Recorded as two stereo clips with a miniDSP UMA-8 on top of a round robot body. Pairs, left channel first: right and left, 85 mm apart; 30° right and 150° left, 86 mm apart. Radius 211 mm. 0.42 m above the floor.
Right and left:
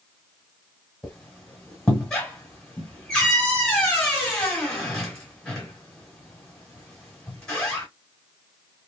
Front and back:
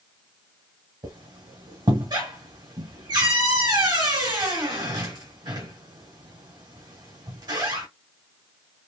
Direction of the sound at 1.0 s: 170° right.